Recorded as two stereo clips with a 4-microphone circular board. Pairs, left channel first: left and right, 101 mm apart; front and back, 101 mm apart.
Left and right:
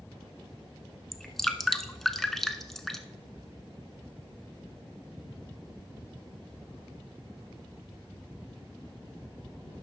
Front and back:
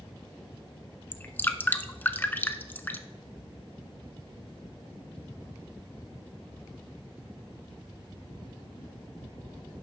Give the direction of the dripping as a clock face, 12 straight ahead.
12 o'clock.